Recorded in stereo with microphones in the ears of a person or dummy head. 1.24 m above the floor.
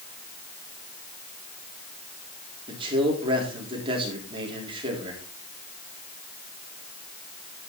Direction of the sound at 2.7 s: 30° right (ahead or behind).